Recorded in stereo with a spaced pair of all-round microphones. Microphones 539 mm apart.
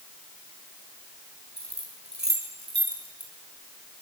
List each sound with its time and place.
1.6 s keys jangling: 30° right (ahead or behind), 6.5 m